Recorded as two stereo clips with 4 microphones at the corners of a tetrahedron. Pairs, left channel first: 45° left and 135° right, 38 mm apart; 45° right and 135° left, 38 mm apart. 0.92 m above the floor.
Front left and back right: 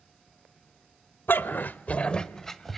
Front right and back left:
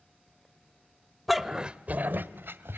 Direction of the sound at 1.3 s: 45° left.